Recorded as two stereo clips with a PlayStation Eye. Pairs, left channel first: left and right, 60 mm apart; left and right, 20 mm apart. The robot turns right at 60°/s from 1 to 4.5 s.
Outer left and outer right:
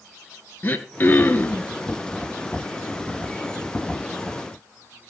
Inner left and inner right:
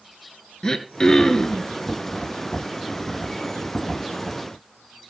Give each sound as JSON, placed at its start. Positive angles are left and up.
{"t": 0.6, "sound": "throat clearing", "azimuth_deg": 85, "distance_m": 1.3}